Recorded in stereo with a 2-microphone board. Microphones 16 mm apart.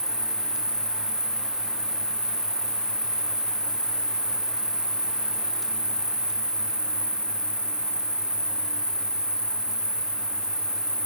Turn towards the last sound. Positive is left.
turn(degrees=-65)  # may be behind; listen again after turning